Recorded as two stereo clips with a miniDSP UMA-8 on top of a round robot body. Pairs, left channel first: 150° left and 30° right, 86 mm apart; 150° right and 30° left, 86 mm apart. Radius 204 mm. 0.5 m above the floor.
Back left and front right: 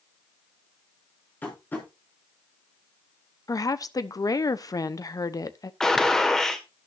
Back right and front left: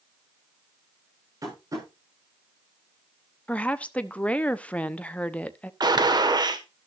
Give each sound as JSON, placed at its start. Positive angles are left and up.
{"t": 1.4, "sound": "tapping", "azimuth_deg": 80, "distance_m": 7.5}
{"t": 3.5, "sound": "a woman speaking", "azimuth_deg": 140, "distance_m": 1.1}
{"t": 5.8, "sound": "a gunshot", "azimuth_deg": 65, "distance_m": 1.9}